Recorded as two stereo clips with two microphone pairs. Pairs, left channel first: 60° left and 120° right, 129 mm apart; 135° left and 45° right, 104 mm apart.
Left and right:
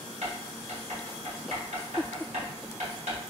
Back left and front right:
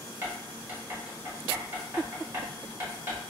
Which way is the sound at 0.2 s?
105° right.